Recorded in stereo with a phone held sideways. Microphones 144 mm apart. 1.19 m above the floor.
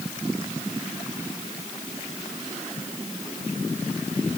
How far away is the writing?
No writing in this recording.